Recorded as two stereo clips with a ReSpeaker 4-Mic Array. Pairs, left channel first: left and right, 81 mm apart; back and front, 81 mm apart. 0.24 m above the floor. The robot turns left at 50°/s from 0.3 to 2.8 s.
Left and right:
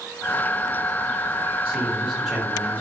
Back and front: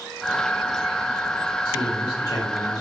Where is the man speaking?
140° right, 1.2 m; by 2.8 s 165° left, 1.2 m.